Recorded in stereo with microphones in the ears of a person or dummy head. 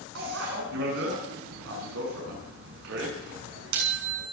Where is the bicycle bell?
70° right (ahead or behind), 8.5 m.